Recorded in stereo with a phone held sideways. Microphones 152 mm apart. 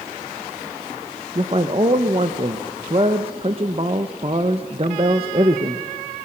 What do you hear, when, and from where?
1.4 s a man speaking: 40° right (ahead or behind), 0.9 m